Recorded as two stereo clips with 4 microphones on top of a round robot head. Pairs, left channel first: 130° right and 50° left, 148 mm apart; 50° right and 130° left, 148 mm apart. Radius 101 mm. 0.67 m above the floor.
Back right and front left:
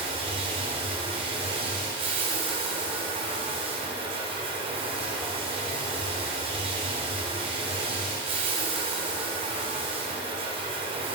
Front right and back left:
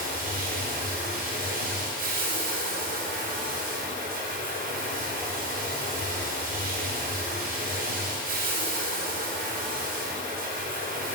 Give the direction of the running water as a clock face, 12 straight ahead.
9 o'clock.